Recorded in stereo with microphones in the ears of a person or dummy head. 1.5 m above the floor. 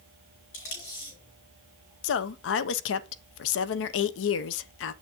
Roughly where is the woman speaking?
Left.